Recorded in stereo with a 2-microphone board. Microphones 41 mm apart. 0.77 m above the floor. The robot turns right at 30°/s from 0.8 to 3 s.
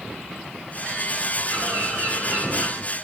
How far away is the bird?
About 3.5 m.